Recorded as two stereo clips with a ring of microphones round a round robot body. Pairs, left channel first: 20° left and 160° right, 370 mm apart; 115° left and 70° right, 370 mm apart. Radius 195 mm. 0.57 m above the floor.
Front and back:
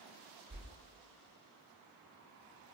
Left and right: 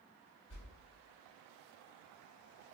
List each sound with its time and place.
0.5 s a whoosh: 140° left, 1.1 m